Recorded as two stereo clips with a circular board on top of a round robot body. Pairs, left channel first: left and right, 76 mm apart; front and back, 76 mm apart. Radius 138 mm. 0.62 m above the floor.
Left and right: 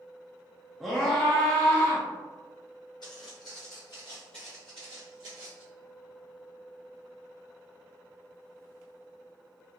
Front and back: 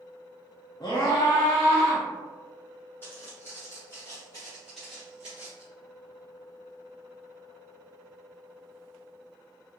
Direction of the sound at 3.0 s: 65° left.